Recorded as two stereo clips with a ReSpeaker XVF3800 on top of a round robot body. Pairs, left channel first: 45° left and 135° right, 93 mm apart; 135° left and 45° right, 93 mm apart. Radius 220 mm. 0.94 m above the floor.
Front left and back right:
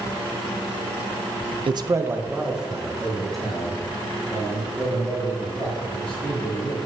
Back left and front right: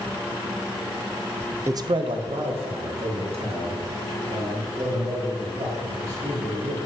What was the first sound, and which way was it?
A man speaking, 105° right.